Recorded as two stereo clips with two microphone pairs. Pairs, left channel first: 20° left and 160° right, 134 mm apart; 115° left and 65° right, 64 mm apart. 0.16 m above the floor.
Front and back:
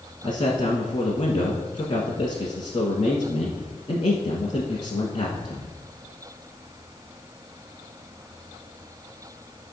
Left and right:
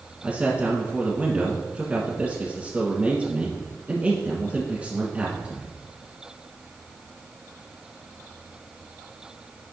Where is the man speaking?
5° right, 1.4 m.